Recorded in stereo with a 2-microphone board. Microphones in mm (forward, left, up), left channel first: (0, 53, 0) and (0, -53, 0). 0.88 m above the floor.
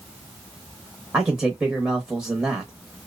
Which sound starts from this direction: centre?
A man speaking, at 1.1 s.